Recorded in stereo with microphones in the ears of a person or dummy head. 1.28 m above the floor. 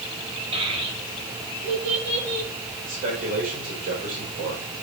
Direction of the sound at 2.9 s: 40° right (ahead or behind).